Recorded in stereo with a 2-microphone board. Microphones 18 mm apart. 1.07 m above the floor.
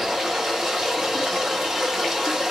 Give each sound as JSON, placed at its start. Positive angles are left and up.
{"t": 0.0, "sound": "running water", "side_deg": -35, "distance_m": 1.5}